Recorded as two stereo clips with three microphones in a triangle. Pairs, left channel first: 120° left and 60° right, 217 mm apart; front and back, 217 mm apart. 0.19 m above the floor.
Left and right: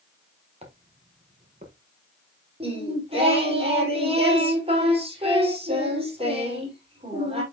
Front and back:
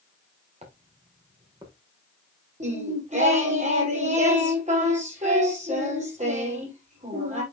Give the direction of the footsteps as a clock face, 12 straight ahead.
4 o'clock.